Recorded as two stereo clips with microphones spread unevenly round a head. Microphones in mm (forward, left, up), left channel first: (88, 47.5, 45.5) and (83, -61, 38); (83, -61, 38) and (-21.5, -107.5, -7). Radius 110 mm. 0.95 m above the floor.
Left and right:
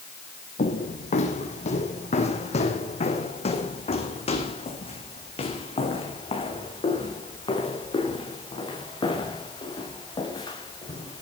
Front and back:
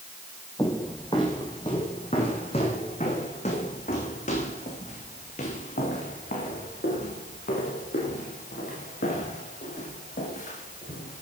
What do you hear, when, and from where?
0.6 s footsteps: 90° left, 3 m; by 11.2 s 40° left, 7.5 m